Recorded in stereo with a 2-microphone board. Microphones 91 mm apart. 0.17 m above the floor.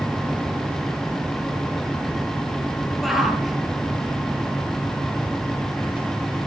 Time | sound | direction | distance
3.0 | a shout | centre (ahead or behind) | 4 m